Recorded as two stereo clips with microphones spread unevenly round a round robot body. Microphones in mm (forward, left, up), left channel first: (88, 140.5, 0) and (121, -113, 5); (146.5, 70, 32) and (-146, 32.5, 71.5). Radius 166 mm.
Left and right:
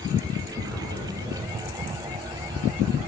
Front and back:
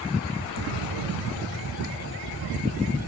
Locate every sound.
0.6 s an explosion: 170° right, 2.5 m